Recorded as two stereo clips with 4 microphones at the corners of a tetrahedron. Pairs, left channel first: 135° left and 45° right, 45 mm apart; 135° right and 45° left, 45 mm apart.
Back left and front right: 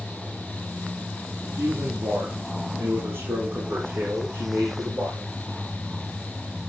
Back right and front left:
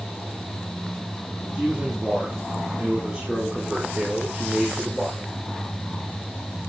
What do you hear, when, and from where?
1.5 s a man speaking: 50° right, 9.5 m; by 5.3 s 35° right, 9 m